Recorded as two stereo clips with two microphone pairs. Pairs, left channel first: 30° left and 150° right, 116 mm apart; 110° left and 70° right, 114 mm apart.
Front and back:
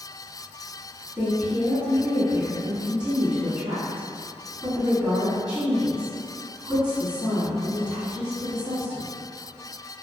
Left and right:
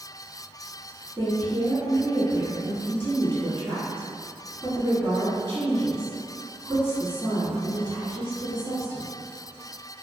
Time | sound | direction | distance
1.2 | a woman speaking | 140° left | 1.3 m